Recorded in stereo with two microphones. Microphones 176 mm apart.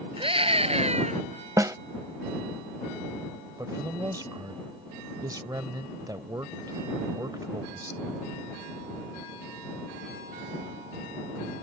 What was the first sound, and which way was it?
A scream, 30° right (ahead or behind).